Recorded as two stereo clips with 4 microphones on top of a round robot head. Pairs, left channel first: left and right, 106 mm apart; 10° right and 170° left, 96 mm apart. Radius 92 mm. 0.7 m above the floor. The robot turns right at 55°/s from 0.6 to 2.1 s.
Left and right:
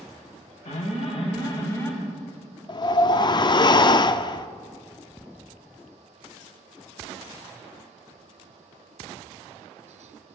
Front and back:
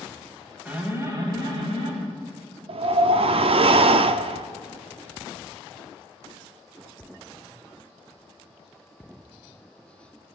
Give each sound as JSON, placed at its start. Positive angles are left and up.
{"t": 0.7, "sound": "an alarm", "azimuth_deg": 90, "distance_m": 4.0}
{"t": 2.7, "sound": "a whoosh", "azimuth_deg": 140, "distance_m": 0.6}